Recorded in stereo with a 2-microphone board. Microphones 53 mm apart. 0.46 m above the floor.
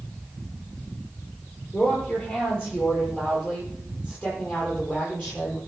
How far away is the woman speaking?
About 9.5 m.